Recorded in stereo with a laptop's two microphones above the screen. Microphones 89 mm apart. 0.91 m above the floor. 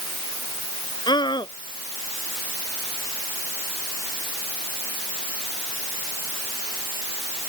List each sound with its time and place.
1.1 s a scream: 55° left (ahead or behind)